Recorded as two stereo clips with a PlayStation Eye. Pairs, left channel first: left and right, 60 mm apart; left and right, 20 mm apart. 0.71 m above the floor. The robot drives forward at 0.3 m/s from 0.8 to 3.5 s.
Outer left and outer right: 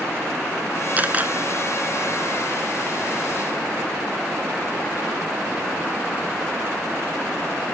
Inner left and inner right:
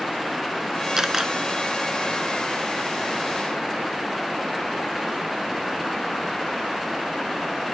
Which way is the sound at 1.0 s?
25° right (ahead or behind).